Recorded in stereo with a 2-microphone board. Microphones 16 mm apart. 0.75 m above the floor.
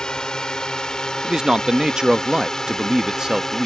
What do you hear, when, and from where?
0.0 s a drone: 40° left (ahead or behind); by 3.7 s 15° left (ahead or behind)
1.2 s a man speaking: 45° right (ahead or behind)